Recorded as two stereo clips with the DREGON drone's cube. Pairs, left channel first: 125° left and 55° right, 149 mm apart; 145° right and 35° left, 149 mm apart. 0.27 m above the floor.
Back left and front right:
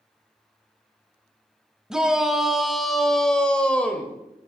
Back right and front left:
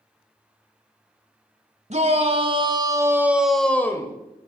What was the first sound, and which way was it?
A shout, 30° left.